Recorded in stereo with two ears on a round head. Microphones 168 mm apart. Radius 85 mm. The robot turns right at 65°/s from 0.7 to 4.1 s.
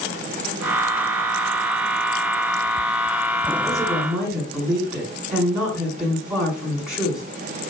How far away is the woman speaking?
About 6.5 m.